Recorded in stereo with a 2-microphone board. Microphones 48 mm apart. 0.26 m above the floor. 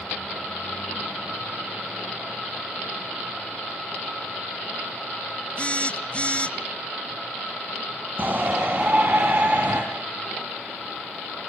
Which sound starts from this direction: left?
A phone buzzing, at 5.6 s.